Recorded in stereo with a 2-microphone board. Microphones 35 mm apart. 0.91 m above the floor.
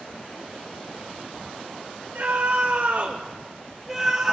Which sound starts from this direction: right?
A scream, at 2.1 s.